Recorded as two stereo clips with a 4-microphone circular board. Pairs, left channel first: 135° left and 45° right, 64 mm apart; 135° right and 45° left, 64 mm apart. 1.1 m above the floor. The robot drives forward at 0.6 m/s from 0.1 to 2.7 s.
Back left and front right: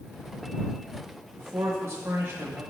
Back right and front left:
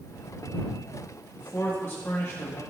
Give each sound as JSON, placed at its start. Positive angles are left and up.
{"t": 1.4, "sound": "a man speaking", "azimuth_deg": -75, "distance_m": 2.0}